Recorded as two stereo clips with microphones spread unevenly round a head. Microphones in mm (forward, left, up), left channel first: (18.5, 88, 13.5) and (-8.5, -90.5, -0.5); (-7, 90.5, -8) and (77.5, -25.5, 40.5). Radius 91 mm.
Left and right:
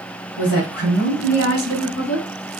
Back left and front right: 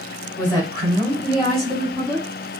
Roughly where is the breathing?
I don't hear breathing.